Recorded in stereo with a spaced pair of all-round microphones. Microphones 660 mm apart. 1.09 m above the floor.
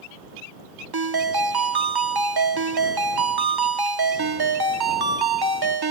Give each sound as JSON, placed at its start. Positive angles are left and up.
{"t": 0.9, "sound": "a ringtone", "side_deg": -35}